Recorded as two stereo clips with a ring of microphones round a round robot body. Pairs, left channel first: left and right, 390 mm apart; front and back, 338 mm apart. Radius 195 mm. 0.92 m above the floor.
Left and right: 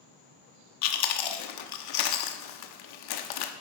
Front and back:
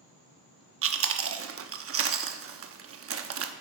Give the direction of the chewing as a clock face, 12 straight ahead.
8 o'clock.